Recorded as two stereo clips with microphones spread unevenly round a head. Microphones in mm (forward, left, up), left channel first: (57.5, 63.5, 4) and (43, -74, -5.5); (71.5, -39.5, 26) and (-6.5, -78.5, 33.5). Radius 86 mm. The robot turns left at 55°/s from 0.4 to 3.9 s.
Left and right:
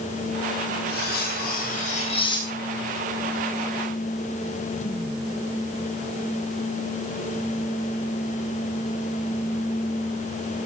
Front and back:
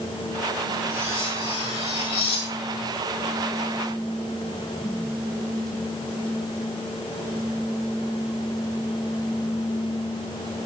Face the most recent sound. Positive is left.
turn(degrees=-55)